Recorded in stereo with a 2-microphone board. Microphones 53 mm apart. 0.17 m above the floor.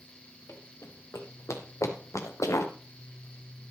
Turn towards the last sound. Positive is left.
turn(degrees=75)  # may be behind; listen again after turning